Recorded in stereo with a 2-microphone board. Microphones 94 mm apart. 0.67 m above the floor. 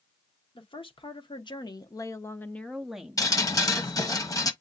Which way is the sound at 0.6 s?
70° left (ahead or behind).